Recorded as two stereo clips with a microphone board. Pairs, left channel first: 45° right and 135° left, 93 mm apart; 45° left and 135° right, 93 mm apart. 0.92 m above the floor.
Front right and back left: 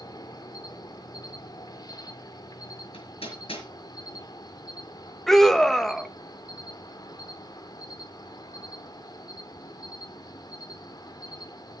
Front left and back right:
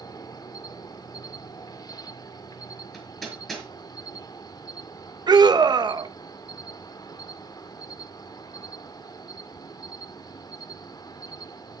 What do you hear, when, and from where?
0.0 s an insect: straight ahead, 1.1 m
2.9 s hammering: 40° right, 5 m
5.3 s a scream: 130° right, 1.1 m